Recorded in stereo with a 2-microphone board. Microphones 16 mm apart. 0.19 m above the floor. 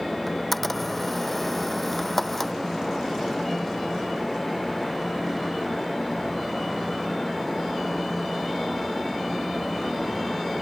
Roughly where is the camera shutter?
Centre.